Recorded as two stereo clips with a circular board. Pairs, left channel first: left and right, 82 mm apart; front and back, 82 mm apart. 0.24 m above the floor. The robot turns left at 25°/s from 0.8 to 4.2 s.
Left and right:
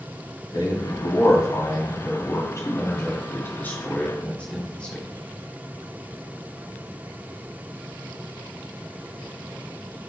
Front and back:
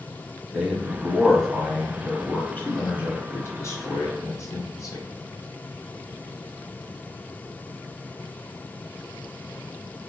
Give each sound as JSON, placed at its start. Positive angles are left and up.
{"t": 0.5, "sound": "a man speaking", "azimuth_deg": 100, "distance_m": 1.3}